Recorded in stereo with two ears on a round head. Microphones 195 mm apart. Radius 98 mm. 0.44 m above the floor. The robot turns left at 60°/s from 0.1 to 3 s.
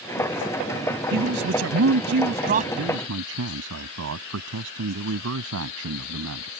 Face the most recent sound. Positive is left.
turn(degrees=-70)  # may be behind; listen again after turning